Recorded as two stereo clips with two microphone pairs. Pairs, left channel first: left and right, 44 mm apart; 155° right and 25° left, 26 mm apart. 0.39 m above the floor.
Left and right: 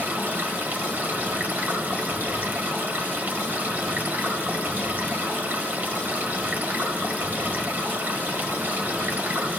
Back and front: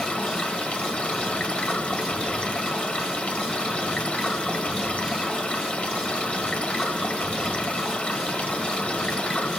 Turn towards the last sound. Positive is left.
turn(degrees=-130)